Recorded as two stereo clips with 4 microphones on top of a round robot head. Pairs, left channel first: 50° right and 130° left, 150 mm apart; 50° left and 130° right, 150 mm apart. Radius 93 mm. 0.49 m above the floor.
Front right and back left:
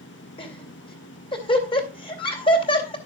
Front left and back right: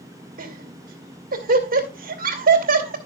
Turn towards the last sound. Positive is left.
turn(degrees=-105)